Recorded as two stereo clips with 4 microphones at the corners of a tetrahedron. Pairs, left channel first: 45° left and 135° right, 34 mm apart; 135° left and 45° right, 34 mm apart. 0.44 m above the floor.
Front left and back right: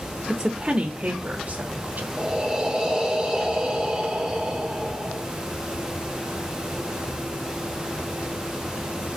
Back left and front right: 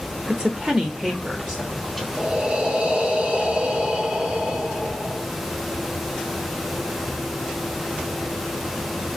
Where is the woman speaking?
80° right, 0.9 m; by 2.1 s 120° right, 1.9 m.